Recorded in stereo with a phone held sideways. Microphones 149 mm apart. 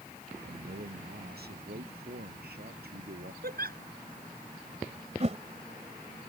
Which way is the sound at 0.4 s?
90° right.